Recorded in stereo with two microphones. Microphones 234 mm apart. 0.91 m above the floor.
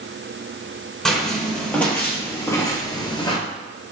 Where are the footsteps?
Centre (ahead or behind), 1.5 m; by 3.4 s 20° left (ahead or behind), 0.9 m.